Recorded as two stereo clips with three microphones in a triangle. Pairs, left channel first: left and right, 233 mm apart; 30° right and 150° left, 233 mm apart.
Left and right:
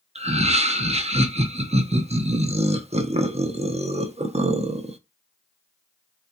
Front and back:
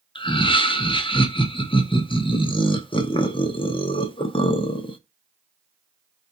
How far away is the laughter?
About 0.6 m.